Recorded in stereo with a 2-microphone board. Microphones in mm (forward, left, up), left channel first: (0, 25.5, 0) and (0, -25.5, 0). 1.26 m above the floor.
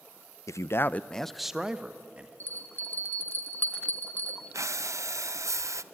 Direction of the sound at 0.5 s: 75° left (ahead or behind).